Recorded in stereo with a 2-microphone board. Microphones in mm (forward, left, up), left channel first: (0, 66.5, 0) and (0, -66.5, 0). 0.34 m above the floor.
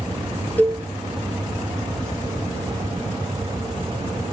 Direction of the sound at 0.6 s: 15° left (ahead or behind).